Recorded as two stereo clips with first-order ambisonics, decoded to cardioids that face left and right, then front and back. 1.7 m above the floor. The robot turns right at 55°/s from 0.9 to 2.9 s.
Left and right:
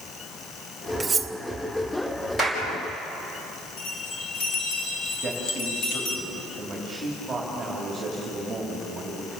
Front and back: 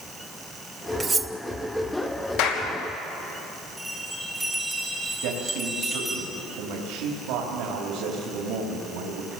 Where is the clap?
10° left, 4.5 m; by 2.6 s 20° left, 4.5 m.